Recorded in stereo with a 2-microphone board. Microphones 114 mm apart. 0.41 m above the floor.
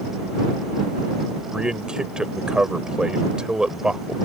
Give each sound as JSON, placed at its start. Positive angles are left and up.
{"t": 1.5, "sound": "a man speaking", "side_deg": -10}